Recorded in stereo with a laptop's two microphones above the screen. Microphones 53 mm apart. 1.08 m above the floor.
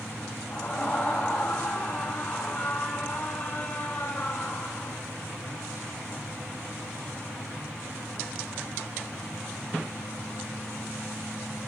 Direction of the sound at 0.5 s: 20° left (ahead or behind).